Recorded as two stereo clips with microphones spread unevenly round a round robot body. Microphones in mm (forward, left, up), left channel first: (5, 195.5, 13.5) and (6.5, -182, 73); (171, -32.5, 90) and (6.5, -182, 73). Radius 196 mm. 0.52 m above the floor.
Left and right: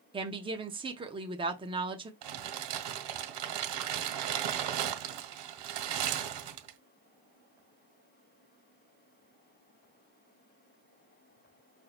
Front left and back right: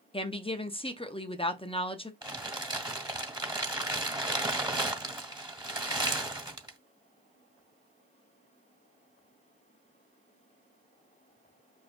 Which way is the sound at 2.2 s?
65° right.